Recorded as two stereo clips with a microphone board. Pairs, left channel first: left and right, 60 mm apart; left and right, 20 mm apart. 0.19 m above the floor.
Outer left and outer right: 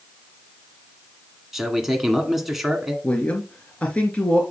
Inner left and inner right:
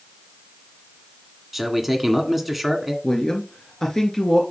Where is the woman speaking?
20° left (ahead or behind), 2.5 m.